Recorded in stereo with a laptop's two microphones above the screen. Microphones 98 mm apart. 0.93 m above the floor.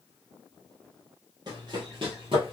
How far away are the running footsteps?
About 1.5 m.